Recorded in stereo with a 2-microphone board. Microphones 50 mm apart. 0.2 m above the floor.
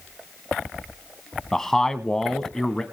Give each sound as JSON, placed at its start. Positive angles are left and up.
{"t": 1.5, "sound": "a man speaking", "side_deg": 10, "distance_m": 1.2}